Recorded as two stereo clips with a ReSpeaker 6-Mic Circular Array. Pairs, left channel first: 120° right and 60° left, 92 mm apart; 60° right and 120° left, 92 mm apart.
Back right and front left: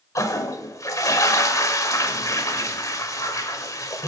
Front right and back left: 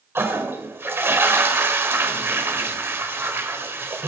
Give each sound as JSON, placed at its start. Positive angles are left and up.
{"t": 0.1, "sound": "a toilet flushing", "azimuth_deg": -175, "distance_m": 1.3}